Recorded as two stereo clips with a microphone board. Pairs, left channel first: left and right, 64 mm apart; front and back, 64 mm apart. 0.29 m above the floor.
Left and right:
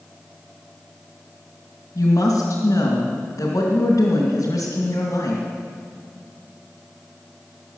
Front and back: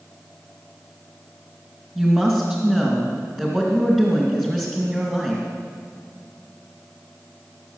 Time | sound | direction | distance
1.9 | a woman speaking | 110° left | 2.5 m